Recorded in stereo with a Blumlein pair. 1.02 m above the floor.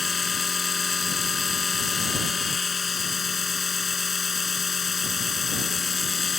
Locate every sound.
0.0 s a machine running: 15° left